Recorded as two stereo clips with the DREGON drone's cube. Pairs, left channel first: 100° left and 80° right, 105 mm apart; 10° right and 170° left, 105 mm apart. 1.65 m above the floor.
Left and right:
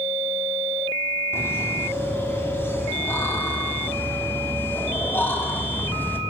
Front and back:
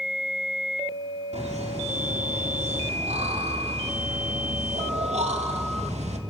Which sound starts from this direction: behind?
Laughter, at 1.3 s.